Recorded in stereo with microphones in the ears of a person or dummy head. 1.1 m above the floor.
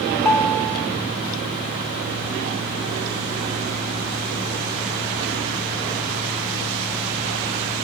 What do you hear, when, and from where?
0.1 s a ringtone: 15° left (ahead or behind), 1.3 m